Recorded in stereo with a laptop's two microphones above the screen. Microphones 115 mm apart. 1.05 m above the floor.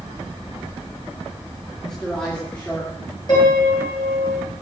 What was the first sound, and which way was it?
A man speaking, 5° left (ahead or behind).